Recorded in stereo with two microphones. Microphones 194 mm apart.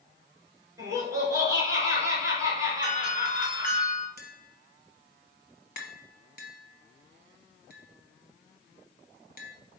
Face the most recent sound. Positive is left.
turn(degrees=50)  # may be behind; listen again after turning